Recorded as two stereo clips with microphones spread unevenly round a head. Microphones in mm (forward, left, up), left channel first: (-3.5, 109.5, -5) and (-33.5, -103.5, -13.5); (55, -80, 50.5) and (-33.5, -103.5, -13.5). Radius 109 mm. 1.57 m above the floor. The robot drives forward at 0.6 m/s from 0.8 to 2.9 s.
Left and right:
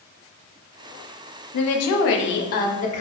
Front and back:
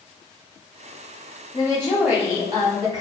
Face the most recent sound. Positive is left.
turn(degrees=140)